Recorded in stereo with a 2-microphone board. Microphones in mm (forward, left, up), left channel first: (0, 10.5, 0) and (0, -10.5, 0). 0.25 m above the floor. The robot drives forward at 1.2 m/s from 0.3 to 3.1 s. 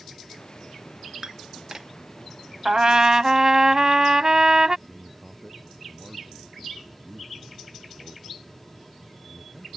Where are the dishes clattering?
35° right (ahead or behind); by 1.9 s 25° right (ahead or behind).